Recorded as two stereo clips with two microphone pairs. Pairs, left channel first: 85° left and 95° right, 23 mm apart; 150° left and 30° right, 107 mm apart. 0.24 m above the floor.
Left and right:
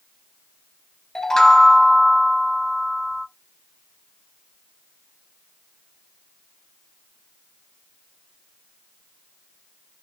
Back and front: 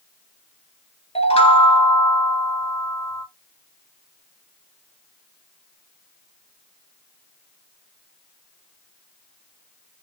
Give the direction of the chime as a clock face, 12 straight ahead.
7 o'clock.